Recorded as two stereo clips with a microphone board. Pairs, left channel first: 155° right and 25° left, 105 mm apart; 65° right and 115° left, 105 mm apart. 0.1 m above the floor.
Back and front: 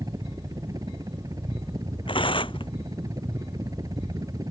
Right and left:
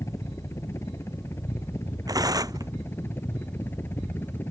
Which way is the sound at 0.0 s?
15° right.